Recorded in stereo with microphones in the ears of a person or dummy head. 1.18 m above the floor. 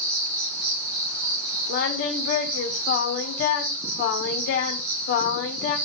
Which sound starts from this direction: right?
An insect, at 0.0 s.